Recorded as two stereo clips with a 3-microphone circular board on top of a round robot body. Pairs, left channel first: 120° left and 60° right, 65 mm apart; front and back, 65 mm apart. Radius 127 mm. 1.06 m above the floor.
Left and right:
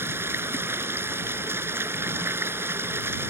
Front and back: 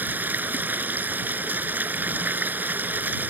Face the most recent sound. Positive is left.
turn(degrees=-115)